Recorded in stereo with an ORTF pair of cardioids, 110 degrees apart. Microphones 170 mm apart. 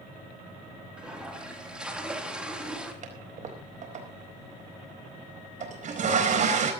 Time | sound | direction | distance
1.0 | a toilet flushing | 5° right | 3.5 m
3.0 | a toilet flushing | 50° right | 4.5 m